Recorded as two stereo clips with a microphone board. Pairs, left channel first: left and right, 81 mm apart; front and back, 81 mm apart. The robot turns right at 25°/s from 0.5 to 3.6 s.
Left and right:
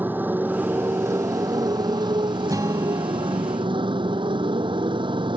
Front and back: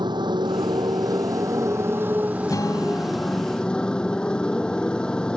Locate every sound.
0.0 s a motorcycle: 155° right; by 5.4 s 80° right
2.5 s a guitar: 45° right; by 3.6 s 15° right